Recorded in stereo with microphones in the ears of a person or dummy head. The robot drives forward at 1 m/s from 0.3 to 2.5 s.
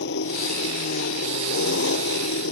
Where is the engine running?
70° left (ahead or behind); by 2.5 s 75° left (ahead or behind).